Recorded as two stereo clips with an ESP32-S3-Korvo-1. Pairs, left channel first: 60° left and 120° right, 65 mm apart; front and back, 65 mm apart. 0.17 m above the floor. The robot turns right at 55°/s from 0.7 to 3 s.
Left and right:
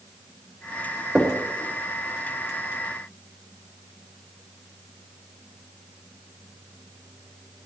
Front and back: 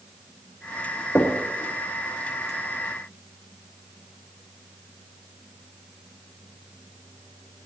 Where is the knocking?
40° right, 2.5 m; by 1.4 s 30° right, 2.5 m.